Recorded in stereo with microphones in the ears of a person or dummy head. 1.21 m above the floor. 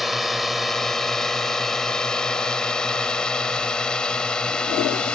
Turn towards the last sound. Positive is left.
turn(degrees=5)  # may be behind; listen again after turning